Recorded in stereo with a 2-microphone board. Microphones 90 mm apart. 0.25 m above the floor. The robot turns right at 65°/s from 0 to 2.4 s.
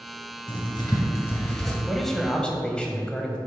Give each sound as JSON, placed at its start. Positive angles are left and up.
{"t": 0.5, "sound": "writing", "side_deg": 70, "distance_m": 2.0}
{"t": 1.9, "sound": "a man speaking", "side_deg": 0, "distance_m": 1.1}